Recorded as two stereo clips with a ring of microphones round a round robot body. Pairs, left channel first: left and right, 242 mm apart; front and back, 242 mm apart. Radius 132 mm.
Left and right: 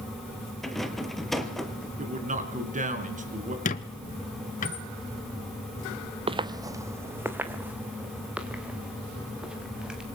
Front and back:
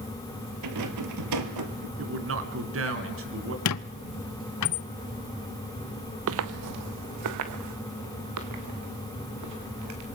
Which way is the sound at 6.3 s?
155° right.